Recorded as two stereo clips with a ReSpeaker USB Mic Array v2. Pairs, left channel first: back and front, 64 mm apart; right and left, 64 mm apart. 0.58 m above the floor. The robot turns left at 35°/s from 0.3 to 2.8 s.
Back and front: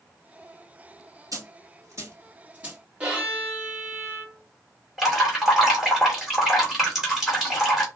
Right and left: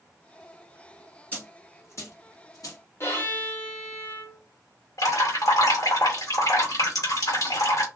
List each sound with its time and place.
1.3 s a dropped coin: 20° right, 1.6 m; by 2.8 s 75° right, 1.6 m
3.0 s a violin: 65° right, 1.5 m
5.0 s dripping: 85° right, 2 m